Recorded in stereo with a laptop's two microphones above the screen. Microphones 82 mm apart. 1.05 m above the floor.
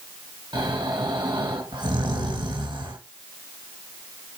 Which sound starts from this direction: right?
Snoring, at 0.5 s.